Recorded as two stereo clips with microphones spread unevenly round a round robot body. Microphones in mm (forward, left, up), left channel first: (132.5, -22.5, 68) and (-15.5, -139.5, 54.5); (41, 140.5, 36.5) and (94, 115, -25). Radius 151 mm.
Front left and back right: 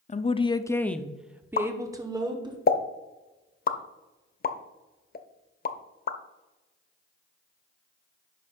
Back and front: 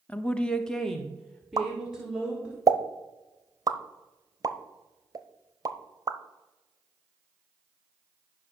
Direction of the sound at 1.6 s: 5° right.